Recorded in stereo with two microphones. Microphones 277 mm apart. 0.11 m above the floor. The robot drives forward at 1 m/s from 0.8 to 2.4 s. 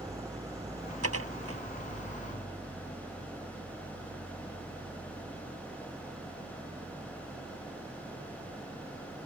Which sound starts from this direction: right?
Dishes clattering, at 1.0 s.